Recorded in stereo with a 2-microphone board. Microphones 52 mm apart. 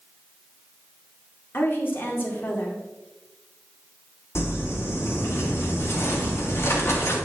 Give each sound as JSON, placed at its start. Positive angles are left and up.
{"t": 1.5, "sound": "a woman speaking", "side_deg": 40, "distance_m": 1.9}
{"t": 4.3, "sound": "crumpling", "side_deg": 60, "distance_m": 2.5}